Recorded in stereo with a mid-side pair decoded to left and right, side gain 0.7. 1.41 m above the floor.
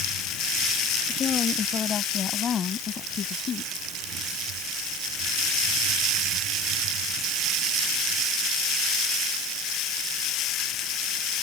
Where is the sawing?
I don't hear sawing.